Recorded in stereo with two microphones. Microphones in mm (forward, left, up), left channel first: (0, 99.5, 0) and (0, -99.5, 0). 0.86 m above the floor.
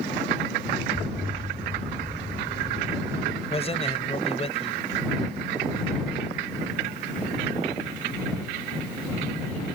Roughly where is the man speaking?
Left.